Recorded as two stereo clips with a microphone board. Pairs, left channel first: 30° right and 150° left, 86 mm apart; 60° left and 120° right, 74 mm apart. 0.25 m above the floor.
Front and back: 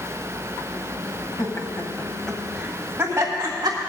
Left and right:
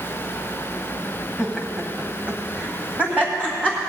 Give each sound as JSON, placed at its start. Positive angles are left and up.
{"t": 1.4, "sound": "laughter", "azimuth_deg": -45, "distance_m": 1.4}